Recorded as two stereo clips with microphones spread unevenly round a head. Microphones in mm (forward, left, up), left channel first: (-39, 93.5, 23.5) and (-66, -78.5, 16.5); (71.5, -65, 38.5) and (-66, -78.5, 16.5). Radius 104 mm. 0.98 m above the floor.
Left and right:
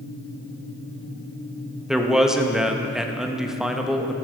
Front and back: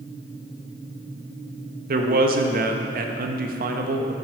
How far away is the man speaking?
About 1.0 m.